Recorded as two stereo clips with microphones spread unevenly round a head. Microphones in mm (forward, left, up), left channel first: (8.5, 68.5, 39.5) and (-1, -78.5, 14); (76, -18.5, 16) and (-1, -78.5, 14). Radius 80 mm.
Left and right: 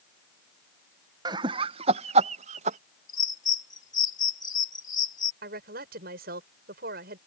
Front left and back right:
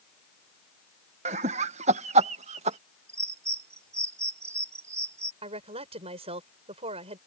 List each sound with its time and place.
1.2 s laughter: 160° right; by 2.8 s 140° right
3.1 s a bird: 150° left
5.4 s a woman speaking: 125° right